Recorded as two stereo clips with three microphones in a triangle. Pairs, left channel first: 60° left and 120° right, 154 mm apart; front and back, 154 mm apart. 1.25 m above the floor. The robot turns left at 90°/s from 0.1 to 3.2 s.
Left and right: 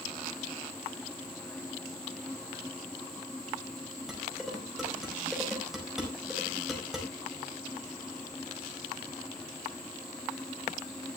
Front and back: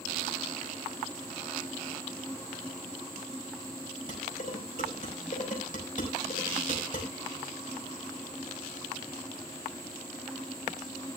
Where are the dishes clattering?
35° right, 4.5 m.